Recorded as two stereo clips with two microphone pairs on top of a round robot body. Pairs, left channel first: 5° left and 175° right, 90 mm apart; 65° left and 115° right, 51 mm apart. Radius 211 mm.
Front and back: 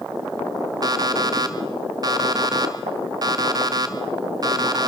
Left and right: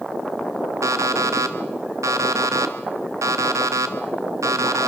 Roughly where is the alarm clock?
Behind right.